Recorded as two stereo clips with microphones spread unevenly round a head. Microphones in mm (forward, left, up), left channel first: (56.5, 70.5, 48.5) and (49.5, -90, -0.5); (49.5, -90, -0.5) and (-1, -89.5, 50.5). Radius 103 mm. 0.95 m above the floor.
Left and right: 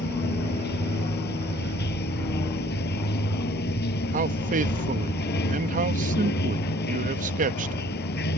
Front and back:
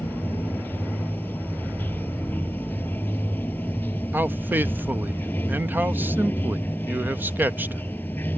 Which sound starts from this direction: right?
A man speaking, at 4.1 s.